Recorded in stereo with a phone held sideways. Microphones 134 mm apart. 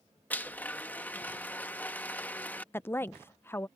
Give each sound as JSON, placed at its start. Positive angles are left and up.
{"t": 0.3, "sound": "a blender", "side_deg": 15}
{"t": 2.7, "sound": "a woman speaking", "side_deg": 20}